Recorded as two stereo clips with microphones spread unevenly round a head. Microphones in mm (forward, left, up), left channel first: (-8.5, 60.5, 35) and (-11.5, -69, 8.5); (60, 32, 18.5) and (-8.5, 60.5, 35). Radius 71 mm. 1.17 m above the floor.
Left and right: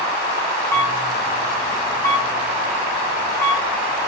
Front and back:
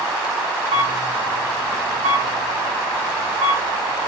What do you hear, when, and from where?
0.7 s a camera shutter: 165° left, 2.0 m